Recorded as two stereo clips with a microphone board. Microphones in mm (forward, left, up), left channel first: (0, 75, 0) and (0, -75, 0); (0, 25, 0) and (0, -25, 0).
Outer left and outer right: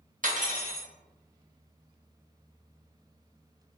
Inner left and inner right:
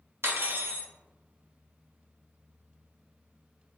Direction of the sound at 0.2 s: 60° right (ahead or behind).